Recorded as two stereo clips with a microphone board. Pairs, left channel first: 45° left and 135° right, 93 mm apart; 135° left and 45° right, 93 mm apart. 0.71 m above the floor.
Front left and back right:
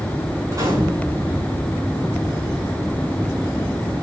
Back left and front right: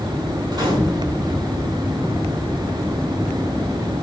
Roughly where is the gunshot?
Right.